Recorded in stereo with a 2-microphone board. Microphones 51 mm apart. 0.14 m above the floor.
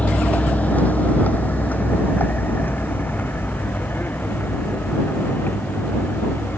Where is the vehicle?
25° left (ahead or behind); by 6.6 s 40° left (ahead or behind).